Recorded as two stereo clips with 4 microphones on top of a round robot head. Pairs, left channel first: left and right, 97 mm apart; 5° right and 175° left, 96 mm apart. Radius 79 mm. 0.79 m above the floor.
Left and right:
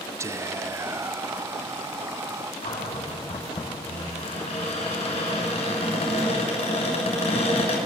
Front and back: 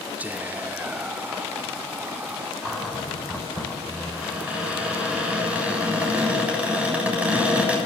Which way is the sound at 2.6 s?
100° left.